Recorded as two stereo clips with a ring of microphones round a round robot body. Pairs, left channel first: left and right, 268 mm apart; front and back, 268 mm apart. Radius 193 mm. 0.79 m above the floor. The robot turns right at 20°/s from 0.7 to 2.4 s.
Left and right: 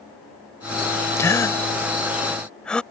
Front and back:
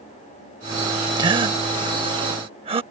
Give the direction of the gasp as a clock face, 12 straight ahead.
7 o'clock.